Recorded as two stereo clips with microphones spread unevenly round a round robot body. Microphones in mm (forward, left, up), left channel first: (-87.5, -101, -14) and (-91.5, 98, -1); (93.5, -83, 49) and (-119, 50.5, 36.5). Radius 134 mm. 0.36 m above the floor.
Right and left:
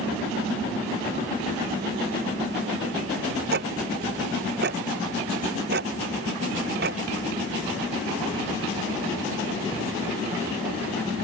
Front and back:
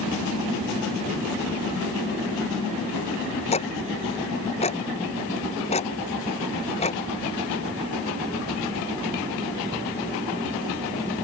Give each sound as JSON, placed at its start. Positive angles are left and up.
{"t": 3.5, "sound": "ticking", "azimuth_deg": 35}